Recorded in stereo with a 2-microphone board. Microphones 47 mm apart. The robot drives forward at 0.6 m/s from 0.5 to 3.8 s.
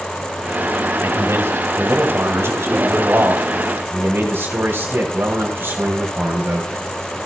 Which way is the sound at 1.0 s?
65° right (ahead or behind).